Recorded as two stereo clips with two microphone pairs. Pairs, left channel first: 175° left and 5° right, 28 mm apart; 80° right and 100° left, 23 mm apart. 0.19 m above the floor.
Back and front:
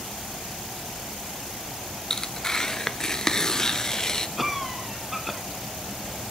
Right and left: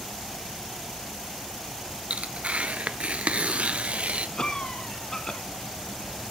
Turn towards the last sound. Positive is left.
turn(degrees=-95)